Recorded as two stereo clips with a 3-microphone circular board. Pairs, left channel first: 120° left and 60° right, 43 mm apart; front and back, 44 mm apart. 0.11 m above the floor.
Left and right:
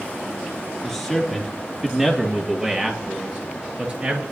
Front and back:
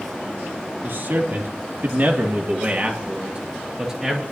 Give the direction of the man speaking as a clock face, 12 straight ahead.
5 o'clock.